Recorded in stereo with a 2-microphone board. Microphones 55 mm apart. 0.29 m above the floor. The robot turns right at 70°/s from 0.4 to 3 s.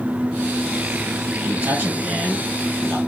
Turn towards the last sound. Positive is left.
turn(degrees=40)